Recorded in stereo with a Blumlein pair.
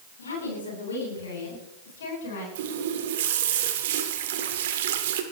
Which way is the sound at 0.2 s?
70° left.